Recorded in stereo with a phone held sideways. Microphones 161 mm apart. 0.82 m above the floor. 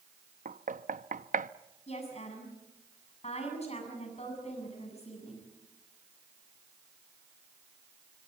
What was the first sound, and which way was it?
Knocking, 60° right (ahead or behind).